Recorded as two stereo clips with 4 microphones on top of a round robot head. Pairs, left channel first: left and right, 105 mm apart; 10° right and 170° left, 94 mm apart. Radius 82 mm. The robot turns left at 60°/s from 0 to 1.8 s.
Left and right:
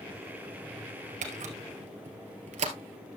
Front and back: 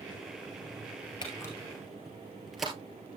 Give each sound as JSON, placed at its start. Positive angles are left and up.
{"t": 1.2, "sound": "a camera shutter", "azimuth_deg": -65, "distance_m": 1.9}